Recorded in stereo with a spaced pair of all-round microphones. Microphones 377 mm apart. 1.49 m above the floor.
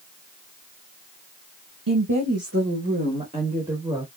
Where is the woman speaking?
55° right (ahead or behind), 1.0 m; by 4.1 s 5° right (ahead or behind), 2 m.